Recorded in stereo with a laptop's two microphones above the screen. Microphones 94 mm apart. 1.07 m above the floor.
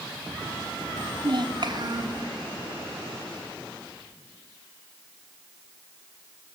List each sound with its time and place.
1.0 s a child speaking: 55° right (ahead or behind), 0.8 m; by 2.2 s 45° right (ahead or behind), 2 m